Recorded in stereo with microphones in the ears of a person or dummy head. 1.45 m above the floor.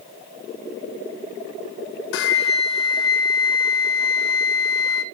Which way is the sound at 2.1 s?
70° left (ahead or behind).